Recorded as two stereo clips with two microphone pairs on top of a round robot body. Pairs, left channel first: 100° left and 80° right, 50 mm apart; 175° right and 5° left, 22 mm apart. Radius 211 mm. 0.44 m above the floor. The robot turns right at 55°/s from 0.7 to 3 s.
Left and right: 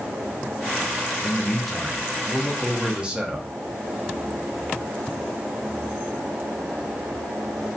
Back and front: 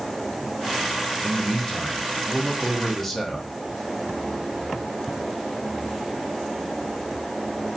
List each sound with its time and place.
1.2 s a man speaking: 165° left, 0.8 m; by 3.5 s 95° right, 0.8 m